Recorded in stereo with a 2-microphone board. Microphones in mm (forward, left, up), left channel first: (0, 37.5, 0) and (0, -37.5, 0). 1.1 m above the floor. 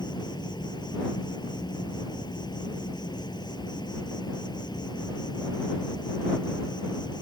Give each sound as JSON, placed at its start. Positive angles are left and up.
{"t": 0.0, "sound": "an insect", "side_deg": 65}